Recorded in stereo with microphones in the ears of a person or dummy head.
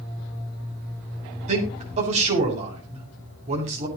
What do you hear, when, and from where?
1.5 s a man speaking: 50° right (ahead or behind), 8 m